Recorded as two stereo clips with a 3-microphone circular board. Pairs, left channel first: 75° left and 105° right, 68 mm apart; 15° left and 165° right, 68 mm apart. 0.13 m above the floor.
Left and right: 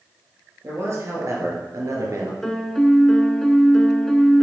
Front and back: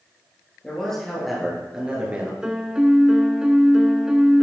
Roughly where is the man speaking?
Ahead right.